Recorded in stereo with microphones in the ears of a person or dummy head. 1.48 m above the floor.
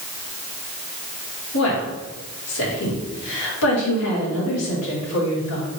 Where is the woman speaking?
85° left, 2 m.